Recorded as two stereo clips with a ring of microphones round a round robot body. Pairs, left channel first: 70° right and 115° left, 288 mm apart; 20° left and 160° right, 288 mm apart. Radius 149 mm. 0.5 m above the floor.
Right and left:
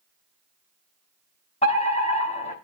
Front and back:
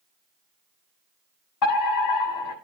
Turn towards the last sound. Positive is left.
turn(degrees=0)